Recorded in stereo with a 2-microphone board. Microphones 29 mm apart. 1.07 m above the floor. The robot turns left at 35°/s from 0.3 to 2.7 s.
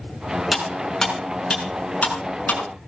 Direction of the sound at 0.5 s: 5° right (ahead or behind).